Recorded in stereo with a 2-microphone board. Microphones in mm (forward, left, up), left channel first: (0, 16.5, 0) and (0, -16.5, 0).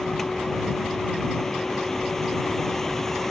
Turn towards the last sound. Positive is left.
turn(degrees=10)  # may be behind; listen again after turning